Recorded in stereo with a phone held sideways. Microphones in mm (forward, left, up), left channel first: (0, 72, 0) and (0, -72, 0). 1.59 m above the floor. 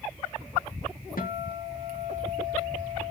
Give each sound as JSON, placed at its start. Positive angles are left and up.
{"t": 1.2, "sound": "a guitar", "side_deg": 80, "distance_m": 2.0}